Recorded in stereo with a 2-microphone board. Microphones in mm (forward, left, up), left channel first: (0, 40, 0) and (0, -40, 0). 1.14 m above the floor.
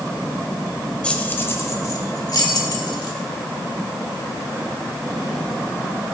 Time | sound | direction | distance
1.0 | keys jangling | 15° left (ahead or behind) | 1.1 m